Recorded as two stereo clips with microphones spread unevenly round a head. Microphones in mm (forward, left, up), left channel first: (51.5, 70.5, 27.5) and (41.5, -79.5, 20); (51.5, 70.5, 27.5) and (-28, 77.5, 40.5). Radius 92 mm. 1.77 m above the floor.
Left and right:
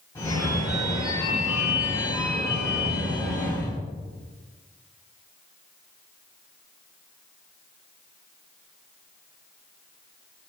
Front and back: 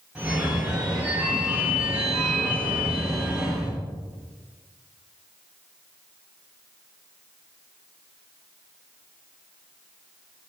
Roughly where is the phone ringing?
Behind left.